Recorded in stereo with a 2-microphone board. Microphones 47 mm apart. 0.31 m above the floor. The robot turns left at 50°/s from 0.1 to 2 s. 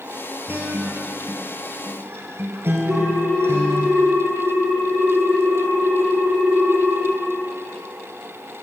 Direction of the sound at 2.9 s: 70° right (ahead or behind).